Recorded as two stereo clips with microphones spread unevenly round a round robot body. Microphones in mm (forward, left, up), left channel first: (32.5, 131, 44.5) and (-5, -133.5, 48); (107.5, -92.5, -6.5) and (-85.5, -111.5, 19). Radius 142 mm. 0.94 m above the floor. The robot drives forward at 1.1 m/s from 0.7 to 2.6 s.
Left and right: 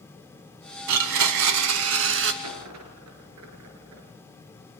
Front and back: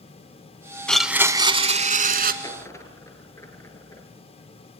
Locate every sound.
0.9 s a blender: 85° right, 1.3 m; by 2.3 s 145° right, 2.0 m
2.4 s a dropped coin: 70° right, 5 m